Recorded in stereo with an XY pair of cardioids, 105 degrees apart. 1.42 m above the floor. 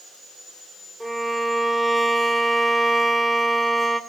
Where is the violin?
5° right, 3 m.